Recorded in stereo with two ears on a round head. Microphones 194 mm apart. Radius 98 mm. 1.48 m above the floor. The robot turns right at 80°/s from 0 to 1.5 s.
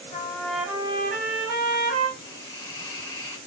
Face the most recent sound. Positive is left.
turn(degrees=10)  # may be behind; listen again after turning